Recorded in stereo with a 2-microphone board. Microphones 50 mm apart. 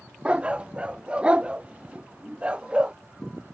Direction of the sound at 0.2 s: 25° right (ahead or behind).